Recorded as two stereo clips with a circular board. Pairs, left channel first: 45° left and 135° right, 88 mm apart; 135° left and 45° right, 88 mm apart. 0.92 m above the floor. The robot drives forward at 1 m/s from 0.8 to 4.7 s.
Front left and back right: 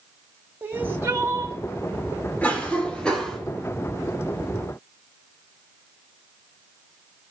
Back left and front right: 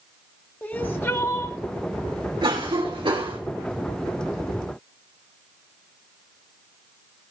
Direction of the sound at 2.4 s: 25° right.